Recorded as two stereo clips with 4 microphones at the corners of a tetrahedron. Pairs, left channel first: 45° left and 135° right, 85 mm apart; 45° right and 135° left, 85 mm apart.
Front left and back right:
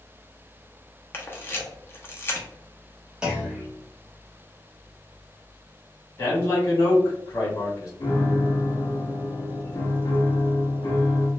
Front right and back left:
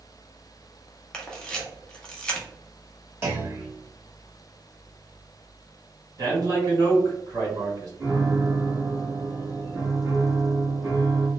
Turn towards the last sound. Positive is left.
turn(degrees=70)